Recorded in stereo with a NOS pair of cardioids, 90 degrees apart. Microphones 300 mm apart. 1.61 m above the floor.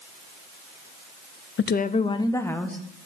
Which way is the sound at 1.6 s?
40° left.